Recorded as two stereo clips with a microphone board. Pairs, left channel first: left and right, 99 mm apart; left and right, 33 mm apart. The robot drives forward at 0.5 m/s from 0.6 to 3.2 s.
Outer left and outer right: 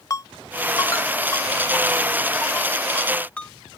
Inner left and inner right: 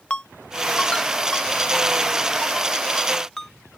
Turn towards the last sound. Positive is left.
turn(degrees=15)  # may be behind; listen again after turning